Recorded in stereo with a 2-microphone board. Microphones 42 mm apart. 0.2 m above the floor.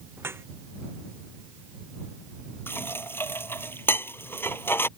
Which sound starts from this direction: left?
Dishes clattering, at 2.7 s.